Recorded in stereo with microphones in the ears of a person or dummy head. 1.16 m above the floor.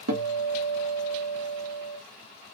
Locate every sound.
0.1 s a guitar: 75° right (ahead or behind), 0.9 m